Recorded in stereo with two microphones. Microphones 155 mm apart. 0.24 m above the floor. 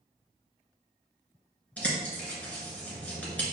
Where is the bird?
10° left (ahead or behind), 1.5 m.